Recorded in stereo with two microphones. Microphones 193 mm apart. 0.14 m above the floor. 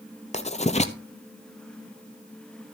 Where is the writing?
35° left (ahead or behind), 0.8 m.